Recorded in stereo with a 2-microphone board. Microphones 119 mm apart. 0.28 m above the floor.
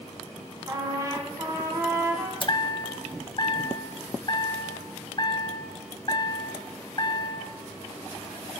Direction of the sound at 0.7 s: 25° right (ahead or behind).